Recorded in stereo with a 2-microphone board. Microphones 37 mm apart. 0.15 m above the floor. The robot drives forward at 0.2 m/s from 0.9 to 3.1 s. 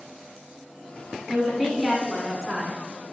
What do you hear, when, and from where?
1.3 s a woman speaking: 5° right (ahead or behind), 1.4 m